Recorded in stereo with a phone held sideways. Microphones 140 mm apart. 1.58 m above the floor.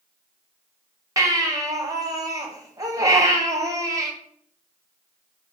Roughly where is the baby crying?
Right.